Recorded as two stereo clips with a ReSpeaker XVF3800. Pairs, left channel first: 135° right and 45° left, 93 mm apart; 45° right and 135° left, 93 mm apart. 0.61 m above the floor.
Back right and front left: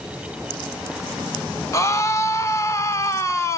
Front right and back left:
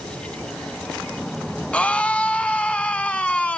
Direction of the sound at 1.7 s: 110° right.